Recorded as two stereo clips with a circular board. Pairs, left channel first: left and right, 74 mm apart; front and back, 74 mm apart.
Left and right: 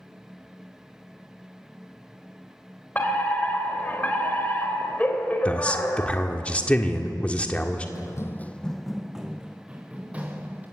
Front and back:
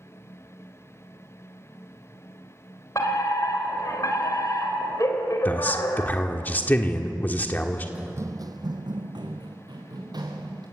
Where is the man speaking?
35° left, 1.5 m.